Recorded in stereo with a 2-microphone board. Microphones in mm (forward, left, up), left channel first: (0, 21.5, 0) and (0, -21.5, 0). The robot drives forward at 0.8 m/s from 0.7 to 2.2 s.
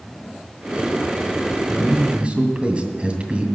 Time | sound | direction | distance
1.7 | a man speaking | 30° right (ahead or behind) | 2.0 m